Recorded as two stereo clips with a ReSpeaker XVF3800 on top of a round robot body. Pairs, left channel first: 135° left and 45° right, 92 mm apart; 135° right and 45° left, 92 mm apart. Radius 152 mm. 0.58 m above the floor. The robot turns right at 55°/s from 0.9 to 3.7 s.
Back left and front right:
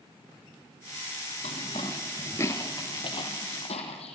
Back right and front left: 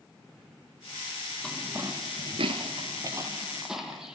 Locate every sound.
1.4 s footsteps: 140° left, 0.6 m; by 4.2 s 130° left, 2.5 m